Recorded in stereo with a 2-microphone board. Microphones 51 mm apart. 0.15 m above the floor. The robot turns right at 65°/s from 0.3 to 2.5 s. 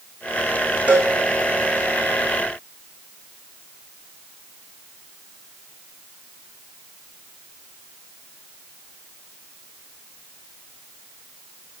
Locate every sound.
0.9 s a cowbell: 30° right (ahead or behind), 2.5 m; by 1.1 s 45° right (ahead or behind), 2.5 m